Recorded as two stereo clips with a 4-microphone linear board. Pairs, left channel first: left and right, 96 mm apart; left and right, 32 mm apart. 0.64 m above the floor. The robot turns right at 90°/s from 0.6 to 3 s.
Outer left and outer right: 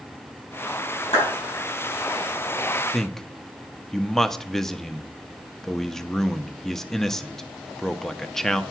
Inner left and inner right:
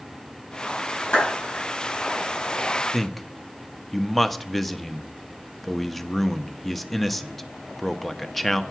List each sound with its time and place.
1.1 s a clap: 85° left, 5.5 m; by 1.3 s 75° left (ahead or behind), 5.5 m
2.9 s a man speaking: centre (ahead or behind), 0.6 m; by 8.6 s 5° left (ahead or behind), 0.6 m